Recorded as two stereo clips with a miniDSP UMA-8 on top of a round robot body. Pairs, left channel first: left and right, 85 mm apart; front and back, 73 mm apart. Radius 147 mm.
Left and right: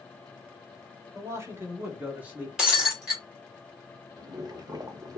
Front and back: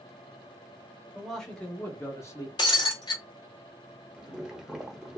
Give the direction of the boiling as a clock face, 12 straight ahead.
3 o'clock.